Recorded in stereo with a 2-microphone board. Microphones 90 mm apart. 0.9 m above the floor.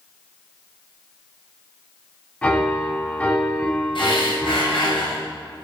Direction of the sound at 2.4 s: 15° left (ahead or behind).